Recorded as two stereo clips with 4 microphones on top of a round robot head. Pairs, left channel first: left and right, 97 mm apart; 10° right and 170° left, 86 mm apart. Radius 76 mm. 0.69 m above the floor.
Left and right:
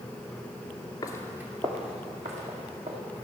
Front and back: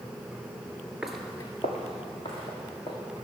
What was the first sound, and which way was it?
Footsteps, 90° left.